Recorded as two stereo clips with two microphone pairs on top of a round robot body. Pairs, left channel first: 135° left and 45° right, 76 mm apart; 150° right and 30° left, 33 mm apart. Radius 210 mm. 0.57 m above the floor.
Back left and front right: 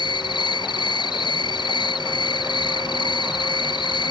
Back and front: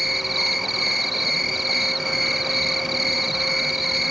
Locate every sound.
0.0 s an insect: 115° left